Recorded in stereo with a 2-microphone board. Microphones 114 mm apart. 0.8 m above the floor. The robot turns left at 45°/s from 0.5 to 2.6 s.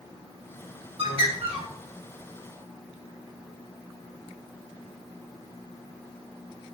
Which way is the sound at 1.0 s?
50° right (ahead or behind).